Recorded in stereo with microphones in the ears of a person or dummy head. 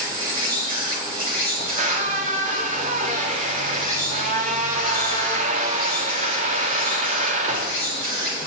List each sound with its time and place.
0.0 s an insect: 25° right (ahead or behind), 6.5 m
1.6 s a squeak: 40° right (ahead or behind), 1.5 m